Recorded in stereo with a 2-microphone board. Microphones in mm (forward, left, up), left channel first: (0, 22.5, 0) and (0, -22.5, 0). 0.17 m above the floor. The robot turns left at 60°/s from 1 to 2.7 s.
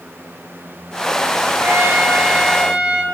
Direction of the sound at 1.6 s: 100° right.